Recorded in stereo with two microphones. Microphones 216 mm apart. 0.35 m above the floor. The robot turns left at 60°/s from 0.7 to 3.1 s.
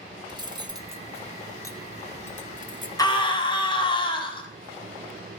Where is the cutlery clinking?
20° right (ahead or behind), 0.6 m; by 2.9 s 35° left (ahead or behind), 0.6 m.